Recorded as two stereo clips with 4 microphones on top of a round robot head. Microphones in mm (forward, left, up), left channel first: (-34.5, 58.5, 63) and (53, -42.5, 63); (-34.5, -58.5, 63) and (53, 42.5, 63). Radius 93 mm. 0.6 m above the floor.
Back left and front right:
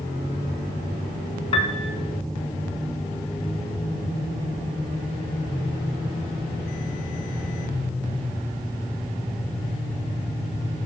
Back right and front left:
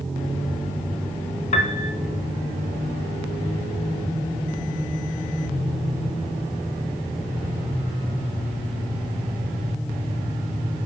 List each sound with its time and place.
1.5 s a piano: 175° right, 1.1 m